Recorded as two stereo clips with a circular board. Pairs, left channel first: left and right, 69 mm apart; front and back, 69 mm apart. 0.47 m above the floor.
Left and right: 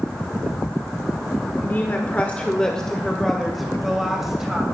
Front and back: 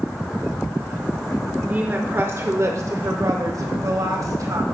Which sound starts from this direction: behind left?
A woman speaking, at 1.6 s.